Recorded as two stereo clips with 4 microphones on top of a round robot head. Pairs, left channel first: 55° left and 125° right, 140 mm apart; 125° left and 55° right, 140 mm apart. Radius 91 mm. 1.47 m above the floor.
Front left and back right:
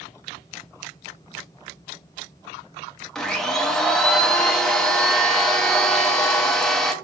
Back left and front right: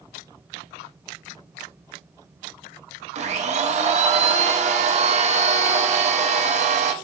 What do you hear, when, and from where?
3.1 s a blender: 30° right, 0.5 m